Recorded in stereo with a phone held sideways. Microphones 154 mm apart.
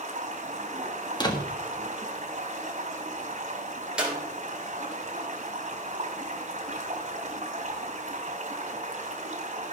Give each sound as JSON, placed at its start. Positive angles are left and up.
{"t": 0.0, "sound": "running water", "side_deg": -45, "distance_m": 3.0}
{"t": 1.2, "sound": "a door slam", "side_deg": 30, "distance_m": 1.5}
{"t": 4.0, "sound": "a clap", "side_deg": -5, "distance_m": 3.5}